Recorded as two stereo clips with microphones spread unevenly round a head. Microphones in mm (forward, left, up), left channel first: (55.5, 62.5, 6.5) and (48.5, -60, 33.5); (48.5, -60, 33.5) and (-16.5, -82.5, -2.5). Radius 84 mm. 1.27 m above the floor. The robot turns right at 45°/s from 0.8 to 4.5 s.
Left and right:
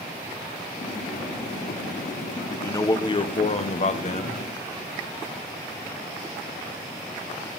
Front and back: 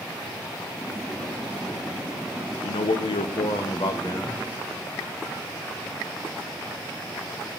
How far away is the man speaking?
About 0.8 m.